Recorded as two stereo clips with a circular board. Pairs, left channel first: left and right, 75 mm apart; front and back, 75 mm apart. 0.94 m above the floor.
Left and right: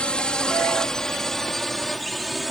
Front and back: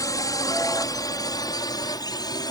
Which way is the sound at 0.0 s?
15° left.